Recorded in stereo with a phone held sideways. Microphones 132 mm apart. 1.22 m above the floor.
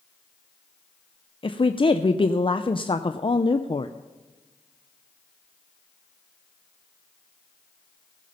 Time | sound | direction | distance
1.4 | a woman speaking | 40° left (ahead or behind) | 0.5 m